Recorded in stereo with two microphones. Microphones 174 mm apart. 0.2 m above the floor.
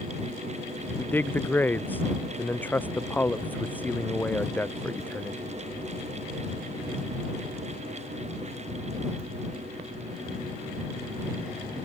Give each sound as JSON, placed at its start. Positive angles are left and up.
{"t": 1.0, "sound": "a man speaking", "side_deg": 10}